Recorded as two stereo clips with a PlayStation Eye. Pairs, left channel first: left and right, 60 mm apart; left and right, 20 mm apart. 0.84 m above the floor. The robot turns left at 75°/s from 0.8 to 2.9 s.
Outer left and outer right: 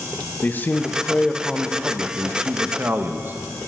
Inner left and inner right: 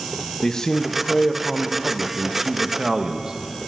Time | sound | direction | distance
0.4 | a man speaking | 60° left | 0.7 m